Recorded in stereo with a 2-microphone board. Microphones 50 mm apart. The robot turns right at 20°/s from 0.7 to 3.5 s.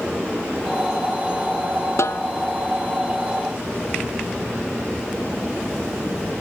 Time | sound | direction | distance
2.0 | a snare drum | 70° left (ahead or behind) | ?